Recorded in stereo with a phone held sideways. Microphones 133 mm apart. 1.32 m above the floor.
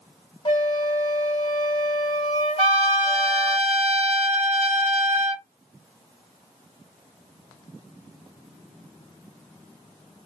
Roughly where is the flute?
Left.